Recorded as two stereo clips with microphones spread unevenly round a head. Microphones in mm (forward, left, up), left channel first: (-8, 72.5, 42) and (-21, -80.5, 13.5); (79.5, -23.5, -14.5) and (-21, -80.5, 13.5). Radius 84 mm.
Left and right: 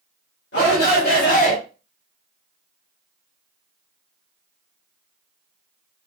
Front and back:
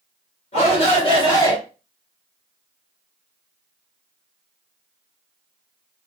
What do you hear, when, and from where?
0.5 s a shout: 60° left, 1.9 m